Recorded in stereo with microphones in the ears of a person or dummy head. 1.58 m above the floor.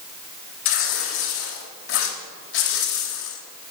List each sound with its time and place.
0.7 s tearing paper: 75° left (ahead or behind), 3.5 m